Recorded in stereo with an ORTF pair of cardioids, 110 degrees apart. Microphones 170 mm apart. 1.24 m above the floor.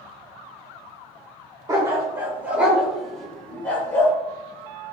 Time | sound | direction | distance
1.7 | a dog barking | 20° right | 2 m